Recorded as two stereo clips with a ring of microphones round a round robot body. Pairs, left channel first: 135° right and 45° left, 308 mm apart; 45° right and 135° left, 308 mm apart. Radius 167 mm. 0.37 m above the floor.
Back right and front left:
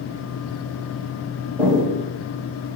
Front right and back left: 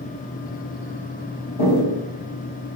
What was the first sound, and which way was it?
Footsteps, 40° right.